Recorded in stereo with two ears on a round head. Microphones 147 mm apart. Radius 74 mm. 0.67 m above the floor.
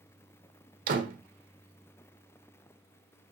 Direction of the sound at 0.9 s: 55° right (ahead or behind).